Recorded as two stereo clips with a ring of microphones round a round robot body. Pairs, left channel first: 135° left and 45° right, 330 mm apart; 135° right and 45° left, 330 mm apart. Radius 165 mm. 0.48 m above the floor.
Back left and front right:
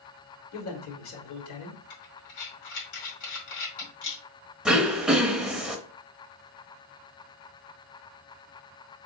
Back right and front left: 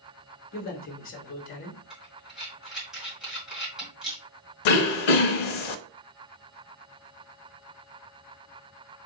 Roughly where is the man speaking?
Behind.